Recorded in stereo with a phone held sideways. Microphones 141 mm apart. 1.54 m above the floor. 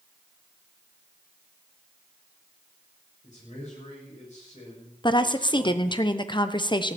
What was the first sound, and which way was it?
A man speaking, 55° left (ahead or behind).